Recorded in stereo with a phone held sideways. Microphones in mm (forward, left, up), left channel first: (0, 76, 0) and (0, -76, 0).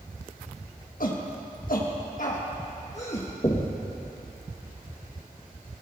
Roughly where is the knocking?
Left.